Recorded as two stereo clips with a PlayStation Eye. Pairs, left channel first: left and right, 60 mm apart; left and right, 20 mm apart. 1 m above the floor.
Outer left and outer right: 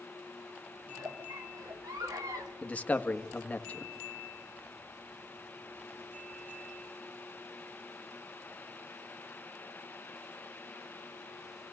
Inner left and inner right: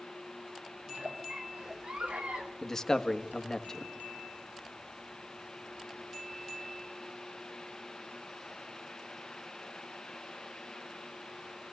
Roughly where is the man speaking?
Left.